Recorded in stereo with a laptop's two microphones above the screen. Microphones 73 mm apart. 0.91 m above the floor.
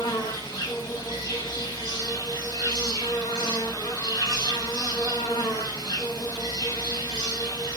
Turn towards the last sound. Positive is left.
turn(degrees=75)  # may be behind; listen again after turning